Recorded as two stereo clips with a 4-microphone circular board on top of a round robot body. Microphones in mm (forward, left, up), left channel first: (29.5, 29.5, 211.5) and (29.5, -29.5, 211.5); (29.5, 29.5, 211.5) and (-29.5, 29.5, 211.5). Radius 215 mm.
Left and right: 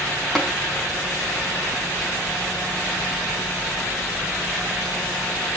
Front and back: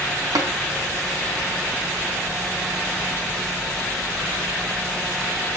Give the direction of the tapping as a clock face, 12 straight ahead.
6 o'clock.